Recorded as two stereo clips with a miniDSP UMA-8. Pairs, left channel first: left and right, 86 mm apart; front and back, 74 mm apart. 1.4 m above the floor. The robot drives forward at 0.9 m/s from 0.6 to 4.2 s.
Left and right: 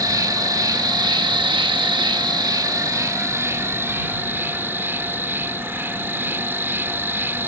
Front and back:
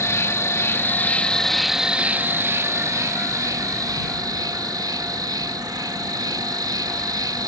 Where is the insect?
50° right; by 7.5 s 155° right.